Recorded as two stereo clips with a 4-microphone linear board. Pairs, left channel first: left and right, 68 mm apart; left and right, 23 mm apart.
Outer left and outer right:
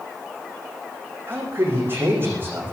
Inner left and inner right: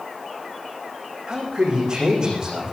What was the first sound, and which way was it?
A man speaking, 35° right (ahead or behind).